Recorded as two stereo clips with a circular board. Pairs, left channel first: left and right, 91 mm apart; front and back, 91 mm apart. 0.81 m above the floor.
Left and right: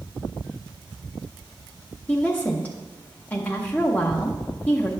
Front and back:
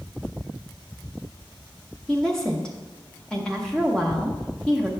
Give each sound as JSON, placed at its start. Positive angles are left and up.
{"t": 2.1, "sound": "a woman speaking", "azimuth_deg": 65, "distance_m": 0.8}